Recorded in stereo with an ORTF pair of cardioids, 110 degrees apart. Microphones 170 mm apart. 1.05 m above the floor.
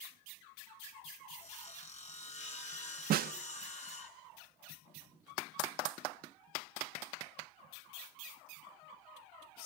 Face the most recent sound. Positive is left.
turn(degrees=-60)